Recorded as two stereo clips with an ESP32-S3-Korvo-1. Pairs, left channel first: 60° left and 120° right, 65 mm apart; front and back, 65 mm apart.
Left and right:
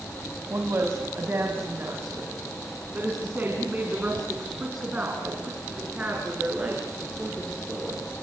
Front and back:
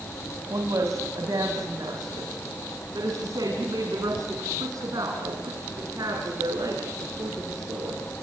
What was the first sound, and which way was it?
A woman speaking, 165° right.